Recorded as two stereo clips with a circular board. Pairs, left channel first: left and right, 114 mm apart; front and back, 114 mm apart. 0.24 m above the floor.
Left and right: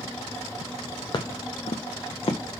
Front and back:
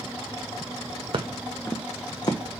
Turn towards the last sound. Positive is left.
turn(degrees=50)